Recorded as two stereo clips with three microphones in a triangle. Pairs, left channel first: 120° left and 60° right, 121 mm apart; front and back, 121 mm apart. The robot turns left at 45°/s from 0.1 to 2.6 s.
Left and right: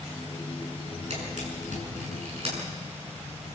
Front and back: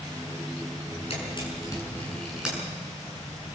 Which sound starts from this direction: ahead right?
A camera shutter, at 1.1 s.